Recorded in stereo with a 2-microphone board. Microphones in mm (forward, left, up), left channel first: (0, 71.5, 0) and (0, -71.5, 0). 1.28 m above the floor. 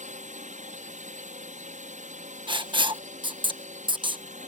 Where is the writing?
35° right (ahead or behind).